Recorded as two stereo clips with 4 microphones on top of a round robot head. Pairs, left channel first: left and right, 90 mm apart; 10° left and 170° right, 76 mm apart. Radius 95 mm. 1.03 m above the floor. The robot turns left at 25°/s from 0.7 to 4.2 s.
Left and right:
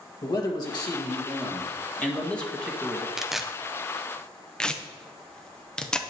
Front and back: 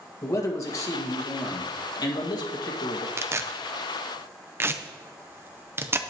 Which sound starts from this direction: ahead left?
A man speaking, at 0.2 s.